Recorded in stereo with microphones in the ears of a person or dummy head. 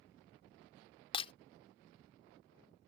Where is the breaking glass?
30° left (ahead or behind).